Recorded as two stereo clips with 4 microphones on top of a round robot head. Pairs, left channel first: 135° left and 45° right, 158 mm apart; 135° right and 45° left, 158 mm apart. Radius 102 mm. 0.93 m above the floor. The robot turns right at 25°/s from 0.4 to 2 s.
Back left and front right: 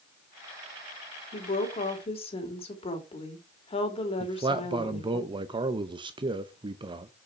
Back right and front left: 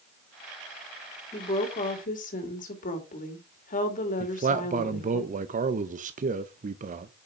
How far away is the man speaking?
About 0.6 m.